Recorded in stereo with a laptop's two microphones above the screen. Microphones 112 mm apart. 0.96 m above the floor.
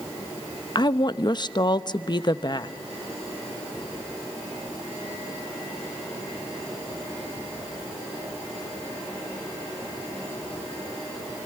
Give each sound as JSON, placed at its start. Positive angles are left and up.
{"t": 0.8, "sound": "a woman speaking", "side_deg": 40, "distance_m": 0.7}